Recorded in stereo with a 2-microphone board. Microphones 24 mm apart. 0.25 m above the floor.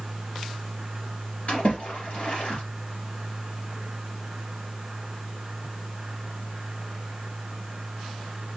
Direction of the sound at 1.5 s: 55° left (ahead or behind).